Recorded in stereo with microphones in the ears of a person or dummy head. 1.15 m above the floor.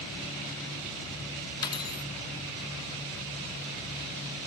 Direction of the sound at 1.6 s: 25° left (ahead or behind).